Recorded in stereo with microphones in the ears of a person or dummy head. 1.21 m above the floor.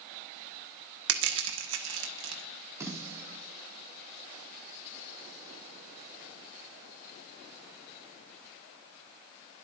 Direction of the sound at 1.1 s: 70° right (ahead or behind).